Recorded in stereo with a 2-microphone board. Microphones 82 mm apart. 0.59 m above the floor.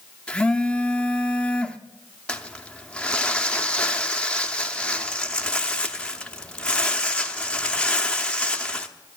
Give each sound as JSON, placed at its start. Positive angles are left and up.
{"t": 0.3, "sound": "a phone buzzing", "side_deg": 10, "distance_m": 0.7}
{"t": 2.3, "sound": "crumpling", "side_deg": 10, "distance_m": 0.7}